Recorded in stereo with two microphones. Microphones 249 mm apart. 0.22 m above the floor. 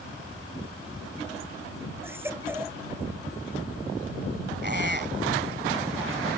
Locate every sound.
2.0 s a baby crying: 10° right (ahead or behind)
4.6 s a squeak: 45° right (ahead or behind)